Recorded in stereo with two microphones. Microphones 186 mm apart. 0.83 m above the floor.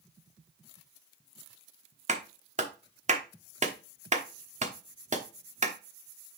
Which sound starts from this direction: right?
A clap, at 2.1 s.